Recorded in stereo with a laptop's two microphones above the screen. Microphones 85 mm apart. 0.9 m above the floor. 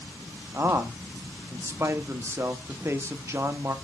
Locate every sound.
0.5 s a man speaking: 30° right (ahead or behind), 1.5 m